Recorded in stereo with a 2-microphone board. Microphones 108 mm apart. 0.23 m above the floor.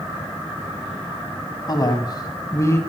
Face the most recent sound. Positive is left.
turn(degrees=25)  # may be behind; listen again after turning